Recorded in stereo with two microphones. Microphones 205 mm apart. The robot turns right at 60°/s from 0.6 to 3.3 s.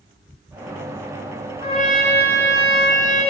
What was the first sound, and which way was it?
A trumpet, 50° left.